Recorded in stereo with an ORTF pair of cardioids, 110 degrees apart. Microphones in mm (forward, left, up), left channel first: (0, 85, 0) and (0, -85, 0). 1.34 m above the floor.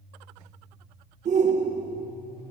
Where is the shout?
45° right, 1.4 m.